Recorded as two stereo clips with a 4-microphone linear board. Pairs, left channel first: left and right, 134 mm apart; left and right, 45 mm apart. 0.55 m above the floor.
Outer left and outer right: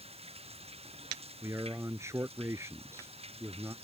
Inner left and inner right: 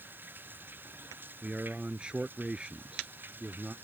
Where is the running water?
50° right (ahead or behind).